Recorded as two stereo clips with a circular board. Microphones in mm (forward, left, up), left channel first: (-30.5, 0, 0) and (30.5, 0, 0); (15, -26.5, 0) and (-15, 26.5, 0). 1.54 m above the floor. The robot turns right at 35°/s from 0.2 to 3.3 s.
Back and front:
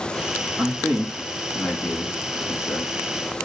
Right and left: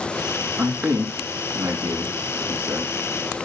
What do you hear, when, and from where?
0.6 s a man speaking: 70° left, 3.5 m; by 3.5 s 165° left, 3.5 m